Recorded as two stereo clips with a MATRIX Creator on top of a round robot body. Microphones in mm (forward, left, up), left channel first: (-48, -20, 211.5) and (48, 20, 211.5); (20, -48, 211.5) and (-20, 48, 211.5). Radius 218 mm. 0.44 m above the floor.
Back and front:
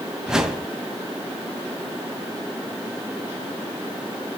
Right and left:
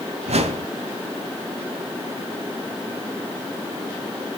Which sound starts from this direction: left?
A whoosh, at 0.3 s.